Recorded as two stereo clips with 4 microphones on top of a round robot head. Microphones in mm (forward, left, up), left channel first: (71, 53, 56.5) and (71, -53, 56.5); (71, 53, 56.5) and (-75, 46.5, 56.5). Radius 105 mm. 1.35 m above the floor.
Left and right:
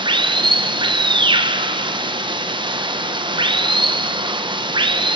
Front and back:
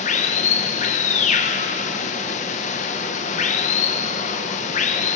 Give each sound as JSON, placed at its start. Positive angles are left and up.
{"t": 0.0, "sound": "running water", "azimuth_deg": -45, "distance_m": 1.1}